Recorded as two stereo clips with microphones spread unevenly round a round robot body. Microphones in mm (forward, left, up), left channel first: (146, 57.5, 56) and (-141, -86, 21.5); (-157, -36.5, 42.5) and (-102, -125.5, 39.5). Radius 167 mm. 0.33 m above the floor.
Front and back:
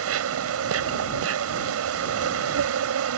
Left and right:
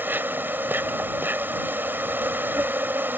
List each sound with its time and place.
0.0 s an insect: 125° right